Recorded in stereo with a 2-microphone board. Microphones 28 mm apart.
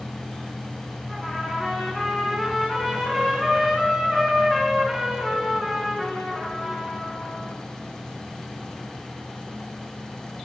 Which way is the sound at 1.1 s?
5° left (ahead or behind).